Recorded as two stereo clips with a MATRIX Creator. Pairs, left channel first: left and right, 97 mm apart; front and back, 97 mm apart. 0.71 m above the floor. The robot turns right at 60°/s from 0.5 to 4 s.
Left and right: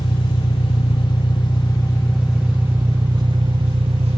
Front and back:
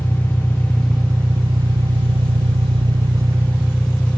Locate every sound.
0.0 s an engine running: 75° left, 1.2 m; by 4.2 s 75° right, 1.2 m